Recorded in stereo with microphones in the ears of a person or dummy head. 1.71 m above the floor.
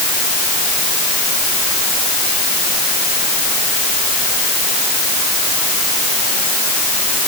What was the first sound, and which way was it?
Only background noise.